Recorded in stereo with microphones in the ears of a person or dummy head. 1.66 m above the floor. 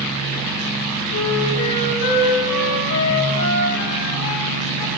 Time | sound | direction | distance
1.1 | a flute | 70° left (ahead or behind) | 2.5 m